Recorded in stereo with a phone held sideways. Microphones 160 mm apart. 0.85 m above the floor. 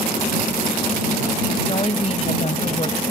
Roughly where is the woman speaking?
Left.